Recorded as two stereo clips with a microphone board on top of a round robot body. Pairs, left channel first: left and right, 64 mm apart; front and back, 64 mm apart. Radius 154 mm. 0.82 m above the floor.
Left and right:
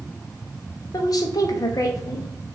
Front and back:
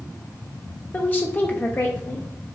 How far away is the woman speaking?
About 0.6 m.